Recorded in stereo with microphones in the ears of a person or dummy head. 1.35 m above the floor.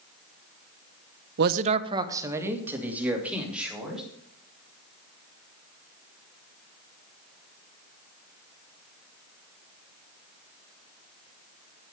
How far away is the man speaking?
About 0.6 m.